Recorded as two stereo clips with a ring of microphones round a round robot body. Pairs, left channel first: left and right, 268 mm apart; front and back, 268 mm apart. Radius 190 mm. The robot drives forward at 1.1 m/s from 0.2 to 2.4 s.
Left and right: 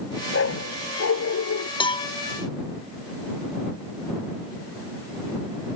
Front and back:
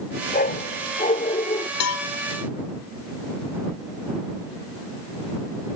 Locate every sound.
0.3 s a dog barking: 55° left; by 1.7 s 65° left
1.8 s a cowbell: 20° left